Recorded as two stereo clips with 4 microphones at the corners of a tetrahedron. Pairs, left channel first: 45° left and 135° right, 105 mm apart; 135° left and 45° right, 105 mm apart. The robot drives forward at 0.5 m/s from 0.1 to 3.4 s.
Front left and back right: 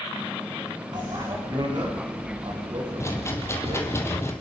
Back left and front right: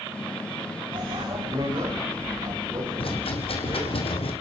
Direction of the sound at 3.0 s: 105° left.